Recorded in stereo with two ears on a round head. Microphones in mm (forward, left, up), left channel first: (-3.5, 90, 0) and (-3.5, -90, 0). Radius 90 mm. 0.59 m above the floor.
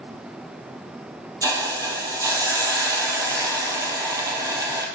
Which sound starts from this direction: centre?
A hiss, at 1.4 s.